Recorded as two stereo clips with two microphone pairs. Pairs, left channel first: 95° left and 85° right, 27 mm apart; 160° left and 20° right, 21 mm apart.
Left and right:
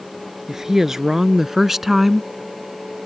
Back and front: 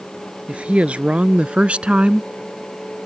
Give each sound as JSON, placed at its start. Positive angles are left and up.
{"t": 0.5, "sound": "a woman speaking", "azimuth_deg": -10}